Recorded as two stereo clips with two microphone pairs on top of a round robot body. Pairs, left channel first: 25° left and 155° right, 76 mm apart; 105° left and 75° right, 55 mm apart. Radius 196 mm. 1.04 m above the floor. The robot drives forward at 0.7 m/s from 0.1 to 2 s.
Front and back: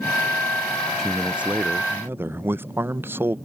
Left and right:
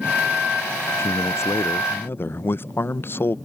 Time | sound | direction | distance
1.0 | a man speaking | 115° left | ?